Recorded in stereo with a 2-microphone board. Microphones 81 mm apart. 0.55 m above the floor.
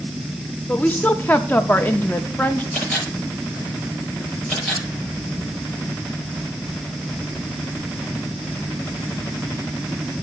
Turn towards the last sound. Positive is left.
turn(degrees=5)  # may be behind; listen again after turning